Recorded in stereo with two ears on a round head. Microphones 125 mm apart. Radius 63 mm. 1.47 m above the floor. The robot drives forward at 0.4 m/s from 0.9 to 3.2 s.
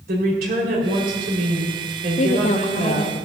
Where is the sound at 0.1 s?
80° right, 5.5 m; by 3.1 s 70° right (ahead or behind), 5.5 m.